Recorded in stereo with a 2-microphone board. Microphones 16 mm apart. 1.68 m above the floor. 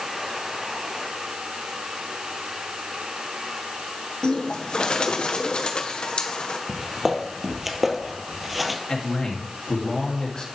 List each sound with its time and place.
4.2 s a bird: 80° left, 1.2 m
6.7 s footsteps: 20° right (ahead or behind), 2 m; by 8.8 s 5° right (ahead or behind), 1.7 m
8.9 s a man speaking: 60° left (ahead or behind), 2.5 m